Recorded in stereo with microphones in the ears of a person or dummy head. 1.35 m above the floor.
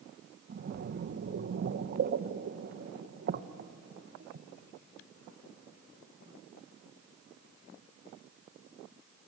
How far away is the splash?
About 0.8 m.